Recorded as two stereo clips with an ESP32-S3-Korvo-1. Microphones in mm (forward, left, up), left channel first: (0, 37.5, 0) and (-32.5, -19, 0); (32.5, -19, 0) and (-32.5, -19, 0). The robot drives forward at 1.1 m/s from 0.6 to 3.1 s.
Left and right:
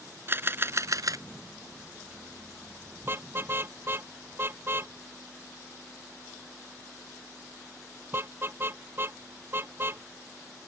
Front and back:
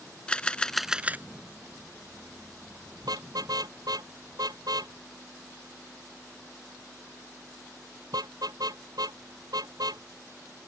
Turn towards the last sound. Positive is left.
turn(degrees=-175)